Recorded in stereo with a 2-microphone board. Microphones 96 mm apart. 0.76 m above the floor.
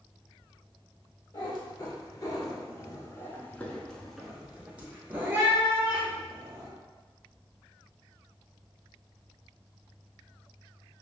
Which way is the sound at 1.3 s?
40° left (ahead or behind).